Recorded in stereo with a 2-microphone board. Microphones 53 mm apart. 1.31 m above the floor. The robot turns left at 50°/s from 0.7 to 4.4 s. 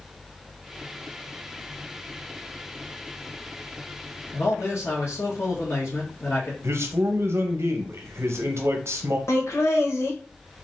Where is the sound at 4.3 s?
60° left (ahead or behind), 1.6 m.